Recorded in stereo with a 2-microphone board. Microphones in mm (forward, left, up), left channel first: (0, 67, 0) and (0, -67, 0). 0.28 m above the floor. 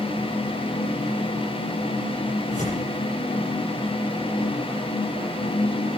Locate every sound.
2.5 s tearing paper: 70° left (ahead or behind), 9.5 m